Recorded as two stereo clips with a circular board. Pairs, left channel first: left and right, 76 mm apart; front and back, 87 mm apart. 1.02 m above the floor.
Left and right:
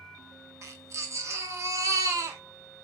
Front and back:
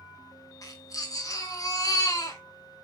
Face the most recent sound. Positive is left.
turn(degrees=-45)